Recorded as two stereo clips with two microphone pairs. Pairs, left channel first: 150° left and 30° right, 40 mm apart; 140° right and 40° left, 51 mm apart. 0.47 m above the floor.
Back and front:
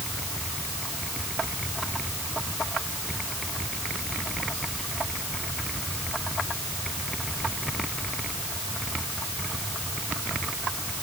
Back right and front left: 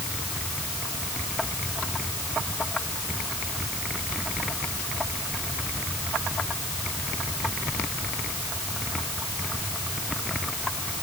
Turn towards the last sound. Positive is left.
No sound to turn to.